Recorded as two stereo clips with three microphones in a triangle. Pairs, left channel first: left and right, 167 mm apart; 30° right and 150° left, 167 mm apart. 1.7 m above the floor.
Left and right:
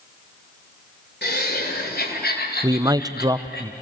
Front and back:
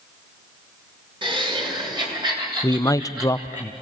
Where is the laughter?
90° left, 6.5 m; by 3.6 s 80° left, 8.5 m.